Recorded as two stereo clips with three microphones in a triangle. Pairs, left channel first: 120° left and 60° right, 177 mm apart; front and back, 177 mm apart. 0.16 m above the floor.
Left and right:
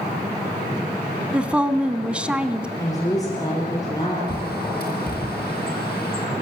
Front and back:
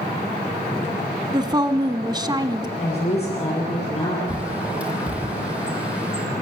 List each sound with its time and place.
1.3 s a woman speaking: 140° right, 1.2 m
2.8 s a woman speaking: 50° left, 4.5 m
4.3 s a bird: 95° left, 3 m